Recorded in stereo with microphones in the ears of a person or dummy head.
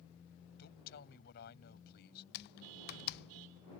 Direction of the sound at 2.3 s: 50° left (ahead or behind).